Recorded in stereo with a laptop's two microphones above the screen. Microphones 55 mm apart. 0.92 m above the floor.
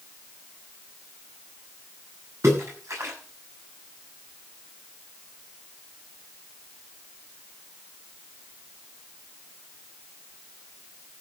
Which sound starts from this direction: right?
A splash, at 2.4 s.